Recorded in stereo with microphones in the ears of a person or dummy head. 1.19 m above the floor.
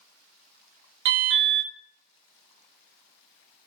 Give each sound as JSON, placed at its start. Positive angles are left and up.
{"t": 1.1, "sound": "an alarm", "side_deg": -60, "distance_m": 0.5}